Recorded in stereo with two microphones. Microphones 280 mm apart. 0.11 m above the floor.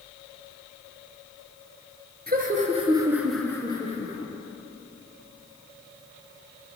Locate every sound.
2.3 s laughter: 35° right (ahead or behind), 1.4 m; by 4.3 s 35° left (ahead or behind), 1.4 m